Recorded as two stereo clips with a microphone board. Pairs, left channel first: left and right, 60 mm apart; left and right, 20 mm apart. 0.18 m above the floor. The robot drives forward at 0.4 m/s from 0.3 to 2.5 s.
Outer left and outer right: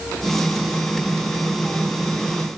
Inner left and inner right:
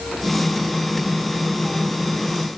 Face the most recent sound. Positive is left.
No sound to turn to.